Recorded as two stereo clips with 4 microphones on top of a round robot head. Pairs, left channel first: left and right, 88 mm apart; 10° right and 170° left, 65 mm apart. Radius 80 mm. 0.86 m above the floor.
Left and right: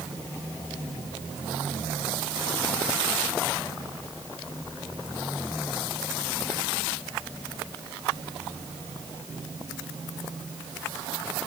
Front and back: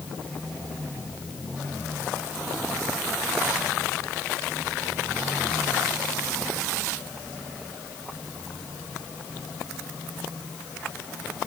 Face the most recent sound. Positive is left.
No sound to turn to.